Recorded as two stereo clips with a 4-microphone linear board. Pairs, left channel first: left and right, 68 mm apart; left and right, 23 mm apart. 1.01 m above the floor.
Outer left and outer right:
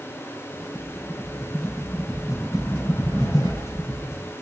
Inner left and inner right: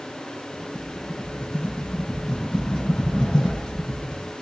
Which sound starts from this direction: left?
A rattle, at 0.5 s.